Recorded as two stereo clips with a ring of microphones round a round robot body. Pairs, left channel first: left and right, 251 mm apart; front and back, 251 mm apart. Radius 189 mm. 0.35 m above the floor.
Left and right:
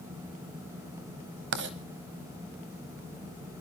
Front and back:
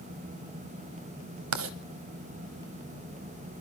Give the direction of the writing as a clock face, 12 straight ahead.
5 o'clock.